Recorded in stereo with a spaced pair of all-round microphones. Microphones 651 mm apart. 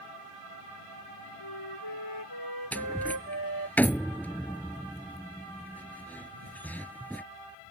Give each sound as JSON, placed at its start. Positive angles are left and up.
{"t": 1.4, "sound": "a flute", "side_deg": 35}
{"t": 2.7, "sound": "a door slam", "side_deg": 0}